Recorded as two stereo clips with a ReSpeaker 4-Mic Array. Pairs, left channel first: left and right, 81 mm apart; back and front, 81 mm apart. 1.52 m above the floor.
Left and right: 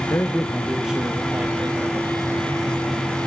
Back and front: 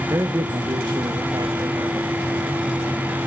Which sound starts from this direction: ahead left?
A man speaking, at 0.1 s.